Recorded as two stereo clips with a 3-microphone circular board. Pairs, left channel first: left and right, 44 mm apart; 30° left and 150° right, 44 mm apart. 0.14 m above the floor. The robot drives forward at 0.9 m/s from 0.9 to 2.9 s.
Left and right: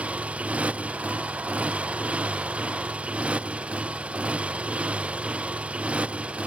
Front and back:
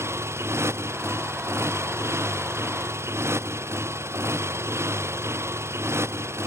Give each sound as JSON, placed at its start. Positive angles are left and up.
{"t": 0.0, "sound": "a motorcycle", "azimuth_deg": -150}